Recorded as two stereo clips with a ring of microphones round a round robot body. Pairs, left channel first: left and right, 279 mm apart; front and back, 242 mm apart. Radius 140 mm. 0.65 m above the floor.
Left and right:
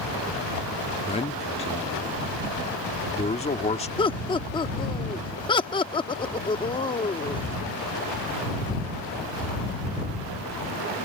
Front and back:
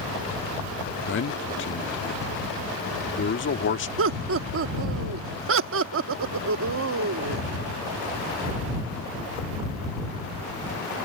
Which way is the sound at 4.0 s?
160° left.